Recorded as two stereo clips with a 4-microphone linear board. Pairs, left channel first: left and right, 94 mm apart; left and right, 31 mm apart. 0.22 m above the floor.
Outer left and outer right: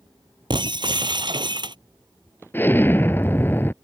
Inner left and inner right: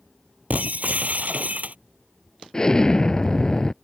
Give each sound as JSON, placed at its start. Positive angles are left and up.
{"t": 0.5, "sound": "breaking glass", "side_deg": -55}
{"t": 2.5, "sound": "an explosion", "side_deg": 25}